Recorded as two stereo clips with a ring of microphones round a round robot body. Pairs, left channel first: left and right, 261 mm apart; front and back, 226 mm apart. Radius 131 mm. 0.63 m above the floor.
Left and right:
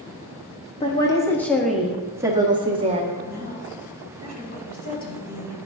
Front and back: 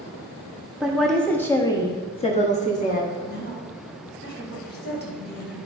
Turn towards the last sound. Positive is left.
turn(degrees=35)